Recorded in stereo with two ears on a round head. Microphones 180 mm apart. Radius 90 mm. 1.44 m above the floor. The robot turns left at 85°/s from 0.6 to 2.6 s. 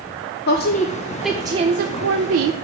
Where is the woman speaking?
55° left, 0.6 m; by 2.5 s 110° right, 0.6 m.